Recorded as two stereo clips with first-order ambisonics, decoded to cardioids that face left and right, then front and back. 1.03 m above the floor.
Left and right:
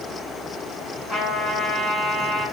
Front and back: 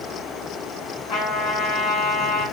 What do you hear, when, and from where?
1.1 s a trumpet: 15° left, 1.9 m